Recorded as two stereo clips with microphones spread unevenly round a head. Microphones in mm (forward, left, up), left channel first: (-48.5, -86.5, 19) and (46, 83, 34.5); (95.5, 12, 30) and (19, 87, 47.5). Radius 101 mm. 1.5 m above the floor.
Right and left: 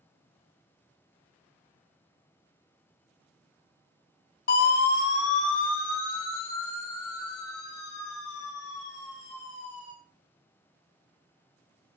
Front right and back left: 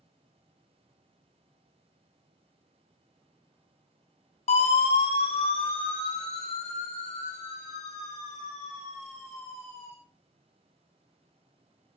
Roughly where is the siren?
Right.